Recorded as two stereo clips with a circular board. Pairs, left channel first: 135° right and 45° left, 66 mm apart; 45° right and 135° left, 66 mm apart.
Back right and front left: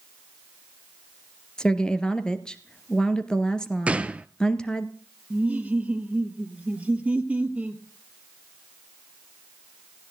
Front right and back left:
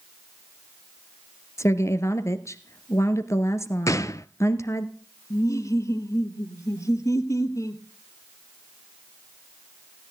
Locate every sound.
1.6 s a woman speaking: 60° right, 1.7 m
3.9 s a gunshot: 25° right, 0.6 m
5.3 s laughter: 20° right, 2.0 m